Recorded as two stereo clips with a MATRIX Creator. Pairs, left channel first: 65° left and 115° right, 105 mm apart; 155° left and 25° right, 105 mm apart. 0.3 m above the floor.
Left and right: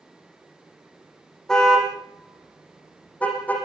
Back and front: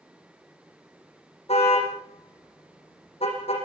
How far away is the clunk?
I don't hear a clunk.